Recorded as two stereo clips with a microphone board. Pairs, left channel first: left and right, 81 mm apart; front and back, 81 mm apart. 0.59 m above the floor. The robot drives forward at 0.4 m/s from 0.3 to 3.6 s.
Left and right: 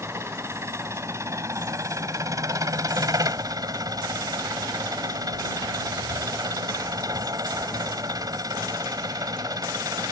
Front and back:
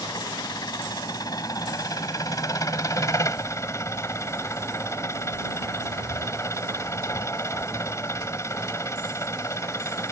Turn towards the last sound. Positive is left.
turn(degrees=-50)